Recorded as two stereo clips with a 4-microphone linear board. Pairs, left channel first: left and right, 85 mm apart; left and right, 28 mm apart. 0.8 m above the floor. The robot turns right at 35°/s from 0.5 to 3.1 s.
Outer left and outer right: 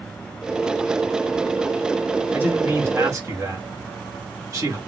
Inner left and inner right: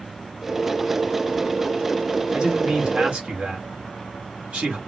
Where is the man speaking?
20° right (ahead or behind), 1.3 m; by 4.8 s 40° right (ahead or behind), 1.3 m.